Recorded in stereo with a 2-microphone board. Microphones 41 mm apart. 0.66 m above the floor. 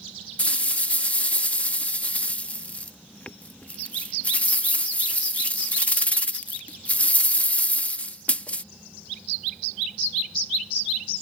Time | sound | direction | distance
0.4 | a rattle | 35° left (ahead or behind) | ?